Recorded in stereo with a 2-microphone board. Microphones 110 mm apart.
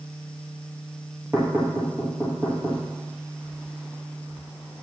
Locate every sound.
1.3 s knocking: 25° right (ahead or behind), 2.5 m